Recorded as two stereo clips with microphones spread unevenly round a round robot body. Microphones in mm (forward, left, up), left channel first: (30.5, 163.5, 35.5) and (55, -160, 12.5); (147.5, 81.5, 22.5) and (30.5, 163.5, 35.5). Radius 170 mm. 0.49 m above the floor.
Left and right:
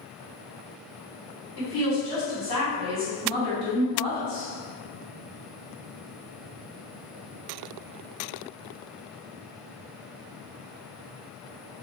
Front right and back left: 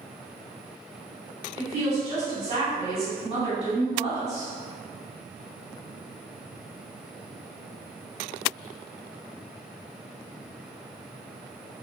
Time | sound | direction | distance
1.6 | a woman speaking | 115° left | 1.7 m